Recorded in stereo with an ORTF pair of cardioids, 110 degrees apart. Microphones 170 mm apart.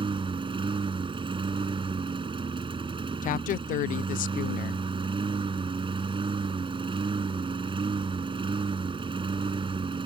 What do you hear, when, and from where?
0.0 s a lawn mower: 35° right
3.2 s a woman speaking: 55° left